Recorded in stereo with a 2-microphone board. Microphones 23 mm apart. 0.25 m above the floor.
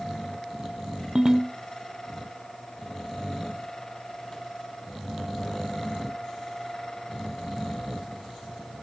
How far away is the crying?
No crying in this recording.